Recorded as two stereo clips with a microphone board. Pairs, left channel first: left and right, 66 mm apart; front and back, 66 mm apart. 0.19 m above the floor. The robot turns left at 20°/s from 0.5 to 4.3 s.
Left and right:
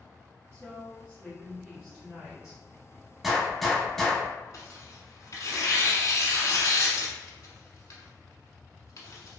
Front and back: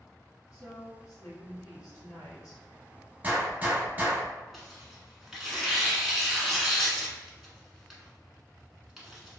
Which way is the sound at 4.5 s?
95° left.